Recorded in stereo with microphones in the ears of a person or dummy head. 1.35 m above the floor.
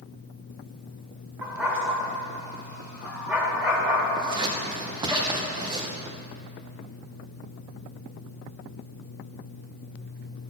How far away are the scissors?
About 1.0 m.